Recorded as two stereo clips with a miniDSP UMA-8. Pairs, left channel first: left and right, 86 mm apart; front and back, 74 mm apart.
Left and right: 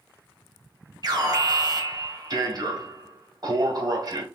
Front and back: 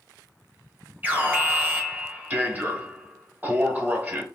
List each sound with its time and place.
1.0 s an alarm: 115° right, 1.4 m